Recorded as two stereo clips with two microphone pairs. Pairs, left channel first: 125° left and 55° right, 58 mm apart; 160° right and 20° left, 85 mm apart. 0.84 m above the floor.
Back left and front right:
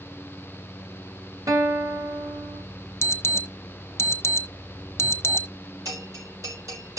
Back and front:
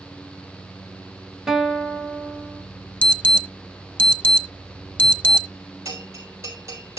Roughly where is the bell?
Ahead right.